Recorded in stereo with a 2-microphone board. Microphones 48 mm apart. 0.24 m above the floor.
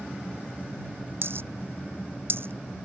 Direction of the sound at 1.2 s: 60° right (ahead or behind).